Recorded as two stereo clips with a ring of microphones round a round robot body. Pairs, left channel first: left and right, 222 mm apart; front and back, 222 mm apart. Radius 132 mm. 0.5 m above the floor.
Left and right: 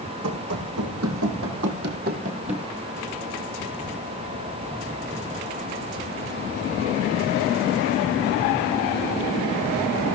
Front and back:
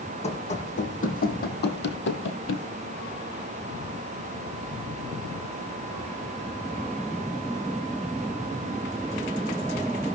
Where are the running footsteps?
60° right, 2 m; by 2.7 s 20° right, 1.3 m.